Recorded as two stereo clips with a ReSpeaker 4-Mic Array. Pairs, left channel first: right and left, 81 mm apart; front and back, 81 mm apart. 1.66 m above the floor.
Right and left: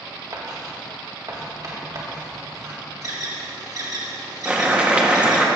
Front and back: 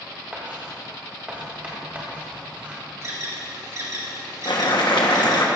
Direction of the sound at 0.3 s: 110° left.